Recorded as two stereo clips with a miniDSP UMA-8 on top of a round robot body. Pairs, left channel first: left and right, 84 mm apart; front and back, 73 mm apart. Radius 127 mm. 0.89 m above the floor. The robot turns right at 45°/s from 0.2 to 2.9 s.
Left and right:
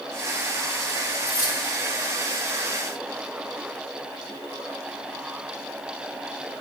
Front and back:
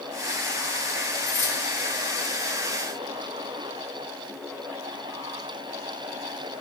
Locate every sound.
1.2 s keys jangling: 40° left, 2.5 m; by 1.6 s 55° left, 2.5 m